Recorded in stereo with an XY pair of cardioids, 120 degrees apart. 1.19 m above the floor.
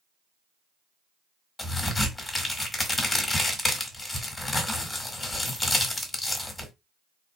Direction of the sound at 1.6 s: 20° left.